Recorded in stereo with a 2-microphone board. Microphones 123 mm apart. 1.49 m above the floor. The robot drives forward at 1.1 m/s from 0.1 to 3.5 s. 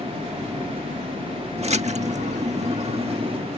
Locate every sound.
1.6 s a splash: 55° right (ahead or behind); by 3.4 s 45° right (ahead or behind)